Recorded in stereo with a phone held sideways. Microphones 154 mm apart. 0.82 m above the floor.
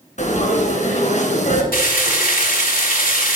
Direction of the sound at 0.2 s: 55° left (ahead or behind).